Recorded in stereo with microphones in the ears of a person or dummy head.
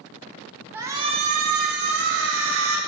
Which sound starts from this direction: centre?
A shout, at 0.7 s.